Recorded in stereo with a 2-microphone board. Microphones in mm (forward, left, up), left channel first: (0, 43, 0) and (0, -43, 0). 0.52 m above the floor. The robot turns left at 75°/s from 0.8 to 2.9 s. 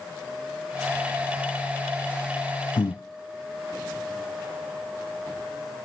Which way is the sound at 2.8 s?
60° left (ahead or behind).